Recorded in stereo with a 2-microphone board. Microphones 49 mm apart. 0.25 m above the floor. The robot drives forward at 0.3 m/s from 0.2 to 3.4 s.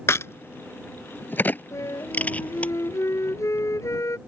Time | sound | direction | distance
0.1 | a crack | 60° left (ahead or behind) | ?
1.7 | a flute | 70° left (ahead or behind) | ?